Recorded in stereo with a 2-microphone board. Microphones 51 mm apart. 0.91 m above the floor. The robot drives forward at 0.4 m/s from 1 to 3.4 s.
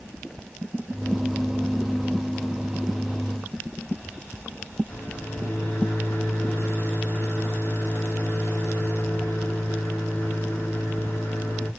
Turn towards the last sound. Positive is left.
turn(degrees=40)  # may be behind; listen again after turning